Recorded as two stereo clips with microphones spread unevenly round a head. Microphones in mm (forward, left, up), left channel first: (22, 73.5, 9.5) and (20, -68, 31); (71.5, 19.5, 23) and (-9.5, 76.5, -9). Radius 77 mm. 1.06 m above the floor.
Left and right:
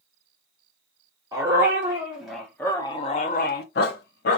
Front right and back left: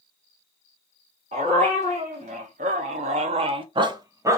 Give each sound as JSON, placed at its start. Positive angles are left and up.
{"t": 1.3, "sound": "a dog barking", "azimuth_deg": -155, "distance_m": 1.2}